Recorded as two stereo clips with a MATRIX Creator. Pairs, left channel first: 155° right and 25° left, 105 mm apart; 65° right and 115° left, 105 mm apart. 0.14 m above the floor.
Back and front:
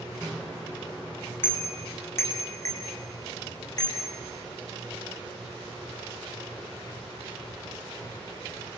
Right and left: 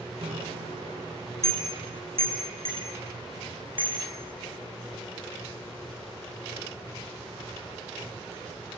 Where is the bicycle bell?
120° left, 5 m; by 4.0 s 150° left, 7 m.